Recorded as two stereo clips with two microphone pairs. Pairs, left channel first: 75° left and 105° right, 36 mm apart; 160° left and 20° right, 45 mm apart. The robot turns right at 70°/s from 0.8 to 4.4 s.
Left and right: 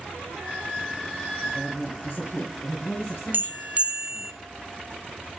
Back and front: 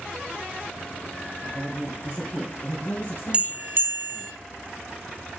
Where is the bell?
85° right, 0.8 m; by 4.3 s 15° right, 0.8 m.